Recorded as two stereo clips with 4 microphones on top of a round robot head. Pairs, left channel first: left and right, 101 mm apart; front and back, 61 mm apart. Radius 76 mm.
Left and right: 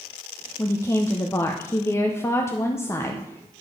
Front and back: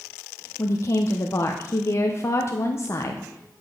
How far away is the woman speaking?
About 0.9 m.